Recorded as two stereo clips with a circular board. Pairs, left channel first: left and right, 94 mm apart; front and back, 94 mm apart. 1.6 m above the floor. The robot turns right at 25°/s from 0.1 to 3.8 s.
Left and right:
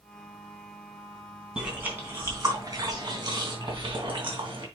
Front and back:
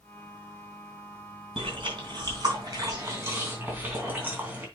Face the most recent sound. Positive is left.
turn(degrees=-110)